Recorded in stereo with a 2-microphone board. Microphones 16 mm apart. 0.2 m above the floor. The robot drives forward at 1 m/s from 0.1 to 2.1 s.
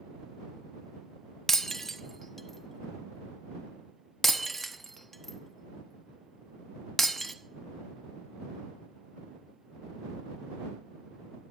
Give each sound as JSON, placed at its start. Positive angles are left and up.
{"t": 1.5, "sound": "breaking glass", "side_deg": 20, "distance_m": 0.6}